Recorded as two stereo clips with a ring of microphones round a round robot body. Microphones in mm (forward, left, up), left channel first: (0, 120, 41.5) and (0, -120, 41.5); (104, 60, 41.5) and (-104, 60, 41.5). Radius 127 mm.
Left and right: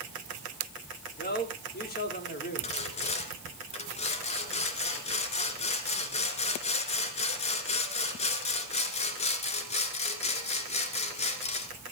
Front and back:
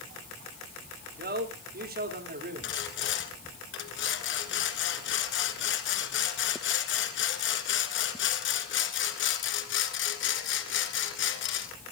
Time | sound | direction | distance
1.2 | a man speaking | 140° left | 3 m
2.6 | sawing | 25° left | 1.7 m